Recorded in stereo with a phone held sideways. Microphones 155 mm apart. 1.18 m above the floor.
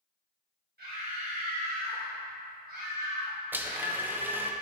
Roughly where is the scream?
Right.